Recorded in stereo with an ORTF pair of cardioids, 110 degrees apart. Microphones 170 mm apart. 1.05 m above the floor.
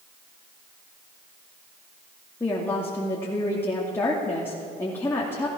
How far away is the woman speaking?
About 2.5 m.